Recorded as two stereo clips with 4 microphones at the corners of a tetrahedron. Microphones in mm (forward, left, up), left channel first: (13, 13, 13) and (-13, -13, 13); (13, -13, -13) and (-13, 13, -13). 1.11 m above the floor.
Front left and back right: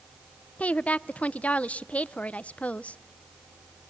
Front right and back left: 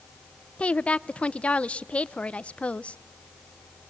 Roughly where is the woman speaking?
Ahead.